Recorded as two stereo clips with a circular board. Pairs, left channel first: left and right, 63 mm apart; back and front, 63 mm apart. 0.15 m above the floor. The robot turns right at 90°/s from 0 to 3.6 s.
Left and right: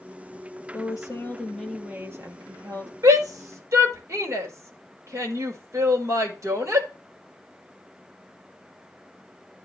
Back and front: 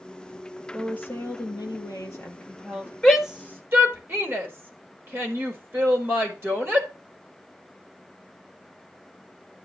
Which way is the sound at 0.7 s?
100° left.